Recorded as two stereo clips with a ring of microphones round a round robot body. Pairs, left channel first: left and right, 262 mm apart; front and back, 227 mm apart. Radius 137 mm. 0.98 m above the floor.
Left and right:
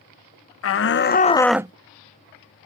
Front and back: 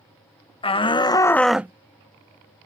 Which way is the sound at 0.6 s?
65° left.